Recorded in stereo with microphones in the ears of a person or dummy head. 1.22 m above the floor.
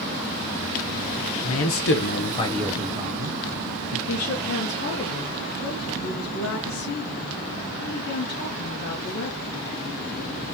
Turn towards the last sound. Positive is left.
turn(degrees=50)  # may be behind; listen again after turning